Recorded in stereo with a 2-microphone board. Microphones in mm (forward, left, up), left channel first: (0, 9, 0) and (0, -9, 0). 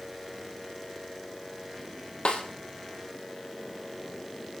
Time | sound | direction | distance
2.2 | a snare drum | 90° left | 2.5 m